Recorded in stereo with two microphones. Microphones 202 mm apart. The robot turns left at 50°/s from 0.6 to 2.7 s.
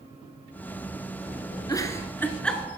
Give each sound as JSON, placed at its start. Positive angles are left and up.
{"t": 1.7, "sound": "a giggle", "side_deg": 20, "distance_m": 1.3}